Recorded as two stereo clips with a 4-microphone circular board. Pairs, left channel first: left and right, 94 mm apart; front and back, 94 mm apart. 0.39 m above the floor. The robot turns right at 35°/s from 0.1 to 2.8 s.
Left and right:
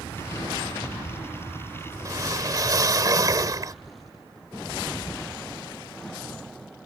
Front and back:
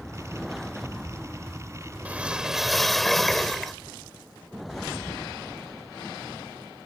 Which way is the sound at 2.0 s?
115° right.